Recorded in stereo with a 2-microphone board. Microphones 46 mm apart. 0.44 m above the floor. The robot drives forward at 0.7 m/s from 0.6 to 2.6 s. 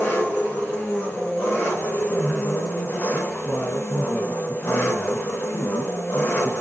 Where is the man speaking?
35° left (ahead or behind), 4 m; by 6.5 s 40° left (ahead or behind), 4 m.